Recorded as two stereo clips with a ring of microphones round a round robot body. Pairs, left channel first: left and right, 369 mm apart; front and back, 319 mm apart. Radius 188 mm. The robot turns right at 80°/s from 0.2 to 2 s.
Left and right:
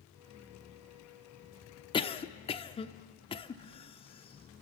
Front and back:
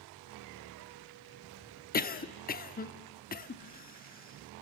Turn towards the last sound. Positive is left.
turn(degrees=30)